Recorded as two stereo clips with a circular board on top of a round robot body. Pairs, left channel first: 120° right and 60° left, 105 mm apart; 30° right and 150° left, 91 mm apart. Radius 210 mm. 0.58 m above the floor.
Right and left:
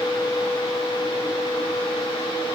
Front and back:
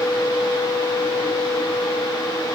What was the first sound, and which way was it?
Only background noise.